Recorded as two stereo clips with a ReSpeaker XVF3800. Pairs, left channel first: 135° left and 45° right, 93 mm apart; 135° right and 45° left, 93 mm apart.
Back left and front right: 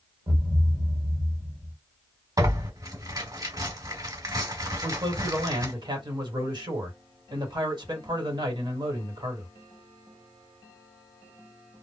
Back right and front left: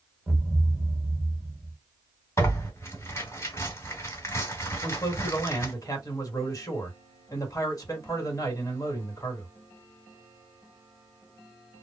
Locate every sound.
0.3 s a thud: 30° right, 1.2 m
2.4 s tearing paper: 85° right, 1.8 m
4.8 s a man speaking: 80° right, 1.3 m